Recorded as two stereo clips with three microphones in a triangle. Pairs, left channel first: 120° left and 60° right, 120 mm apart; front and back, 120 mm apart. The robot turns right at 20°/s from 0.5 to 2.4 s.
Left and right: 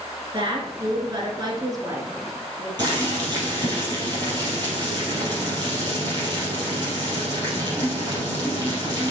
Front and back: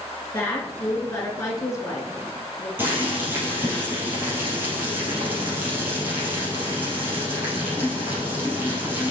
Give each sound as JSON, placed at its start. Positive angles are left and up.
{"t": 0.3, "sound": "a woman speaking", "azimuth_deg": -60, "distance_m": 1.7}
{"t": 2.8, "sound": "boiling", "azimuth_deg": -110, "distance_m": 4.0}